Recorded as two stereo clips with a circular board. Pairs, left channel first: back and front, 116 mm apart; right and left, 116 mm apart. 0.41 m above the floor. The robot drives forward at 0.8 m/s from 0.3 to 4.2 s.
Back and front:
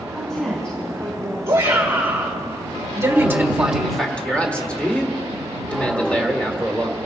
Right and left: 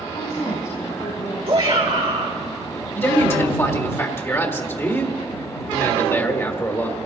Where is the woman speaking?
95° right, 4 m; by 1.4 s 105° right, 4 m.